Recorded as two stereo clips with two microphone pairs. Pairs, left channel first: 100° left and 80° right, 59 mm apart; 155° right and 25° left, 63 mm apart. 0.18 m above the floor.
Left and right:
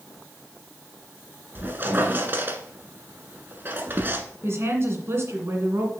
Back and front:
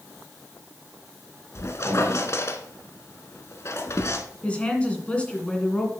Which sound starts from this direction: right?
A woman speaking, at 4.4 s.